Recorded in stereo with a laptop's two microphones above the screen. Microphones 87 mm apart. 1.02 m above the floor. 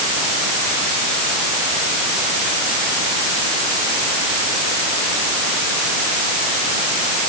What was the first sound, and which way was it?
Only background noise.